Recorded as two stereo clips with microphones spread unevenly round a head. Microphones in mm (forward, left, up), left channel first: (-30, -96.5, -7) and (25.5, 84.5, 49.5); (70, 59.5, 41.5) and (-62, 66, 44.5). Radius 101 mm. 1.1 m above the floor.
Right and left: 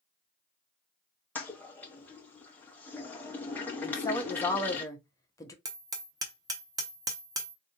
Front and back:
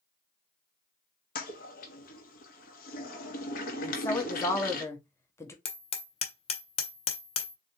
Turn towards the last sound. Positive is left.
turn(degrees=25)